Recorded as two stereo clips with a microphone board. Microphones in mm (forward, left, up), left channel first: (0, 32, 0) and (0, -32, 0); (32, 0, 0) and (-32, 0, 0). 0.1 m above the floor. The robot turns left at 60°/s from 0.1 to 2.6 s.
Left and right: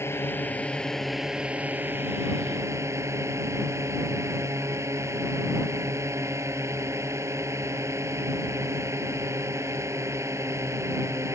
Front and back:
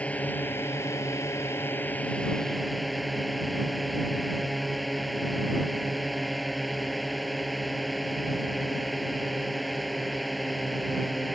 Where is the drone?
60° left; by 11.3 s 90° right.